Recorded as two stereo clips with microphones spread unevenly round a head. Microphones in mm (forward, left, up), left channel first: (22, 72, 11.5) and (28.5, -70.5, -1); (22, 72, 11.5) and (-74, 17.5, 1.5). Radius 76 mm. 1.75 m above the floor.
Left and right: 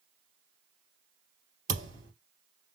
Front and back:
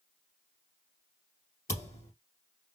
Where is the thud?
30° right, 2.5 m.